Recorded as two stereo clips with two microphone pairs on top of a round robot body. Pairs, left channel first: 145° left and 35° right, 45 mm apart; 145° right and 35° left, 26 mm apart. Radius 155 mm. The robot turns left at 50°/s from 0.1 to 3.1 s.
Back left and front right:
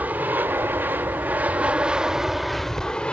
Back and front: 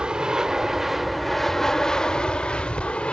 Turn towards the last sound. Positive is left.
turn(degrees=-155)